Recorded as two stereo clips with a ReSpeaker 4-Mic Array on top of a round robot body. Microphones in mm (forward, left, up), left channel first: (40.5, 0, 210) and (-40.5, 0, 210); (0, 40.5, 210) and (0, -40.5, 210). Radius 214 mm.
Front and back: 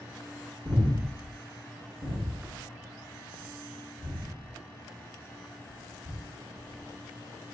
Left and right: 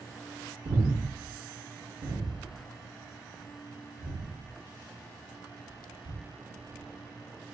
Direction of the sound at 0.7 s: 110° right.